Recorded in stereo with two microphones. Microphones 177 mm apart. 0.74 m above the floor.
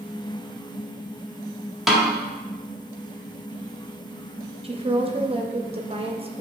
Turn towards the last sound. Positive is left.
turn(degrees=-35)  # may be behind; listen again after turning